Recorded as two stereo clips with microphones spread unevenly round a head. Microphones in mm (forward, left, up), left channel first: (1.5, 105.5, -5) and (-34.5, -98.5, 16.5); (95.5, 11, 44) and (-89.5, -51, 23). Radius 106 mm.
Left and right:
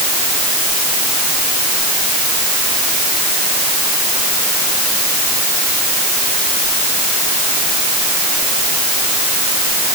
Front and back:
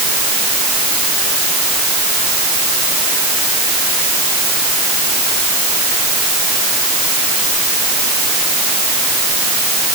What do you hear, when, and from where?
Only background noise.